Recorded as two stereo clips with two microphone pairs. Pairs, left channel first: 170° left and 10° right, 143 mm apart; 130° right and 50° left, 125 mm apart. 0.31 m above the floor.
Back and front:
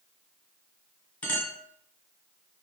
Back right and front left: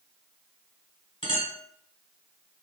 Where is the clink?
115° right, 1.2 m.